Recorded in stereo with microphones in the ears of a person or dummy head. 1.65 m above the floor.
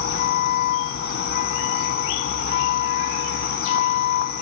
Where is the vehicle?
45° left (ahead or behind).